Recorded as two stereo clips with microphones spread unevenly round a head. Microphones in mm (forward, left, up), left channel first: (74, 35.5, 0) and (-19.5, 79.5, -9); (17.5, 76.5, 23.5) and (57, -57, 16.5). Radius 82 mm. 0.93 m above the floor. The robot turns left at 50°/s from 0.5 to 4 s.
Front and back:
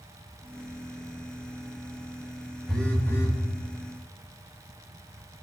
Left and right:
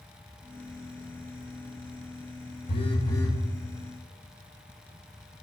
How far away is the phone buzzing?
About 1.0 m.